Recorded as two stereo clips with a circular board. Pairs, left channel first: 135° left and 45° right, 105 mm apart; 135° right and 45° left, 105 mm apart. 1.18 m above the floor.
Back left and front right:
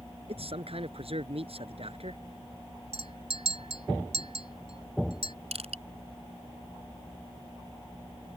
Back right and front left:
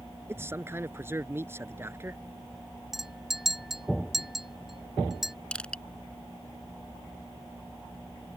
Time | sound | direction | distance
0.3 | a man speaking | 20° right | ?
2.9 | a clink | 40° right | ?
5.5 | crushing | 55° right | ?